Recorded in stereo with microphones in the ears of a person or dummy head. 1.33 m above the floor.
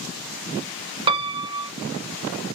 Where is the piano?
25° right (ahead or behind), 0.6 m.